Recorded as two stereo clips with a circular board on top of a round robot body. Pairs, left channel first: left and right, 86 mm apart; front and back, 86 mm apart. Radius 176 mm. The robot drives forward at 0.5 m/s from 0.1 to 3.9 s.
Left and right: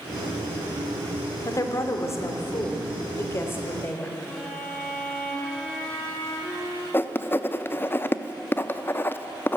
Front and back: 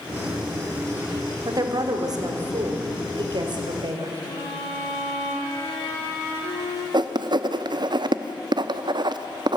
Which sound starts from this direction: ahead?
A violin, at 4.2 s.